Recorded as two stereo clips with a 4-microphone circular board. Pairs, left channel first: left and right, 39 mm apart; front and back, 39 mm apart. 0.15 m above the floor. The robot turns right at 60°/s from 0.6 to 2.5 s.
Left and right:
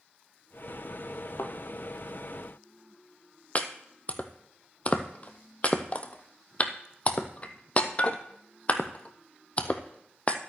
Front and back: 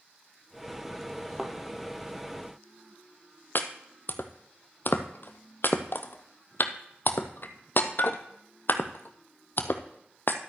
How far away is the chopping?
About 0.9 m.